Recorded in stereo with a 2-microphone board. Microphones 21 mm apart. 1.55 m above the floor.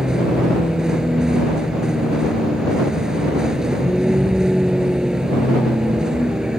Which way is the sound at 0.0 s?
30° right (ahead or behind).